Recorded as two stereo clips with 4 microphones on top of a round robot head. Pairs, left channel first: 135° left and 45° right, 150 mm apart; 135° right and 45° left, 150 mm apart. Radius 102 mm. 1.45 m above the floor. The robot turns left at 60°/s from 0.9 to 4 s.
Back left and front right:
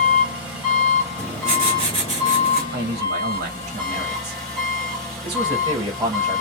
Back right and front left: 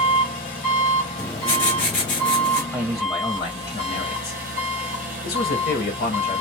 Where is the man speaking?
35° right, 1.0 m; by 6.4 s 110° right, 1.0 m.